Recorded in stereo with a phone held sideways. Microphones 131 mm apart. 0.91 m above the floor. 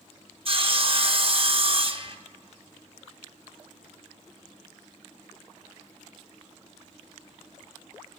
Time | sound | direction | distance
0.5 | sawing | 45° right (ahead or behind) | 0.7 m